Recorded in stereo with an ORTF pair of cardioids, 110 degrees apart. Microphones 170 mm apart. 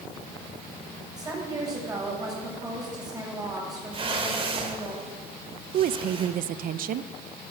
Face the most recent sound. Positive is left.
turn(degrees=-55)